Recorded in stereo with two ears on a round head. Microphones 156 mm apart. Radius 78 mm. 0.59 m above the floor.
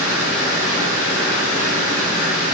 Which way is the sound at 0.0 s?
15° right (ahead or behind).